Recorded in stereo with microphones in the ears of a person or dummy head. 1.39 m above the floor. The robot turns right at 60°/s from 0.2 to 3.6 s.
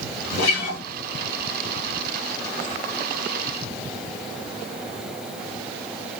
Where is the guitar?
80° left, 2.5 m; by 0.8 s 70° left (ahead or behind), 2.5 m.